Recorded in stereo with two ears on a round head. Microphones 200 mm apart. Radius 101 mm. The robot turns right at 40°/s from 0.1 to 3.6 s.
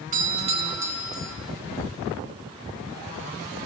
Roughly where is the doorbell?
Ahead right.